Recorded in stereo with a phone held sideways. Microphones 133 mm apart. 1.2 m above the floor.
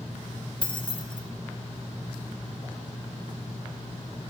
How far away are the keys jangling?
About 0.6 m.